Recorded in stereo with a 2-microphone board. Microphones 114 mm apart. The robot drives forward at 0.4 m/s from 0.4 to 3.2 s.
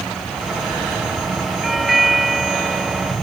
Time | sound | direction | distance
1.6 | a doorbell | centre (ahead or behind) | ?